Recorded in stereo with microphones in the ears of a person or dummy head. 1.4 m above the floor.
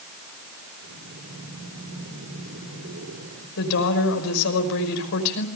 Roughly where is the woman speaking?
Left.